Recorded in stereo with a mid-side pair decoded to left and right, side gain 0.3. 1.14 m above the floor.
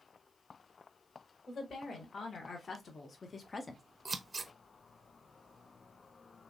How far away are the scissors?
About 0.7 m.